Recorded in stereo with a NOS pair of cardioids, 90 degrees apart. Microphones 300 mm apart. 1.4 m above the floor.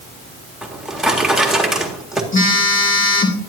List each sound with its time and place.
0.6 s a drawer: straight ahead, 1.8 m
2.3 s a phone buzzing: 40° left, 2 m